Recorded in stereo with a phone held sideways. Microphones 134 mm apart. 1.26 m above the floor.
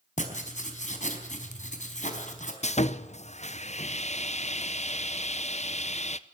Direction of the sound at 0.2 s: 65° left (ahead or behind).